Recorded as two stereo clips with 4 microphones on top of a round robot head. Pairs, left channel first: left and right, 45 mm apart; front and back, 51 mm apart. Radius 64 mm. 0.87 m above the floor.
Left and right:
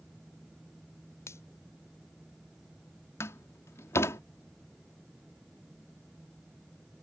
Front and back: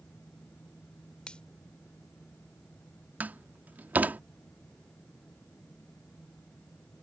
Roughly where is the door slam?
Behind left.